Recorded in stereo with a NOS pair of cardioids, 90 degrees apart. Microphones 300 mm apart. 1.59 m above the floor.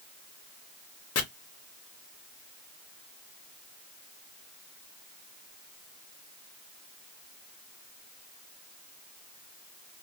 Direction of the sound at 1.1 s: 55° left.